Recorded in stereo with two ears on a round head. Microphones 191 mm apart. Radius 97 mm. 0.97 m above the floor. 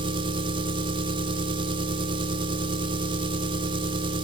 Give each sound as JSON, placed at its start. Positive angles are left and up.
{"t": 0.0, "sound": "an engine running", "side_deg": -25, "distance_m": 1.2}